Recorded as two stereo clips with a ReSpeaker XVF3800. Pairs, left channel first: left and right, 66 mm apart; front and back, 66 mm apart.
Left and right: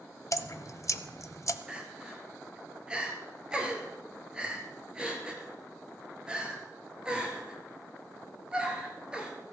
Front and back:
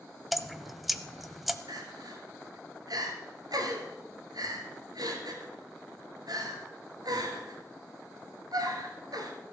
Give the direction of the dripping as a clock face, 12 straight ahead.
9 o'clock.